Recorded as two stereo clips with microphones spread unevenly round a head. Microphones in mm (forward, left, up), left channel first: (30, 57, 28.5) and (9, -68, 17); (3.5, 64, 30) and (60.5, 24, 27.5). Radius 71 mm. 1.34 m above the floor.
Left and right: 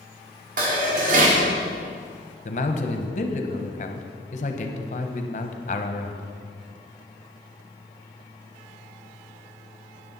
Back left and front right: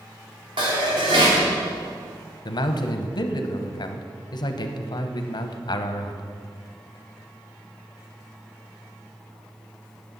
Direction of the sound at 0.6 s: 80° right.